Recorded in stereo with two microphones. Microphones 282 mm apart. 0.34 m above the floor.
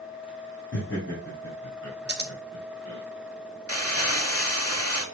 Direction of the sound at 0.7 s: 40° left (ahead or behind).